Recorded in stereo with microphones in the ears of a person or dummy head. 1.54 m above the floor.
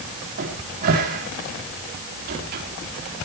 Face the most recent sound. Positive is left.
turn(degrees=-50)  # may be behind; listen again after turning